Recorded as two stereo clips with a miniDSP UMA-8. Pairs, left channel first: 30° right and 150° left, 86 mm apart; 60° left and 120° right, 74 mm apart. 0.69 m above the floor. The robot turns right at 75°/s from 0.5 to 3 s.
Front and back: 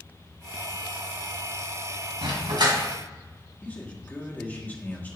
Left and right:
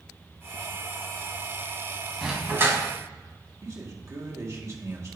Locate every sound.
2.2 s a dog barking: 150° left, 2.0 m; by 2.8 s 165° right, 2.0 m
3.6 s a man speaking: 90° right, 1.6 m